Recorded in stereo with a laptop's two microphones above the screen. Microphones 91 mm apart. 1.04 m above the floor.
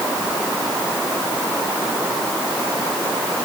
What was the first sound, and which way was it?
Only background noise.